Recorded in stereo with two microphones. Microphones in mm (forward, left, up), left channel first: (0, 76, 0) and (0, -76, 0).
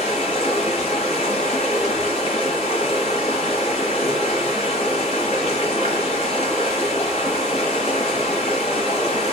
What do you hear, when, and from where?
0.0 s running water: 45° left (ahead or behind), 1.9 m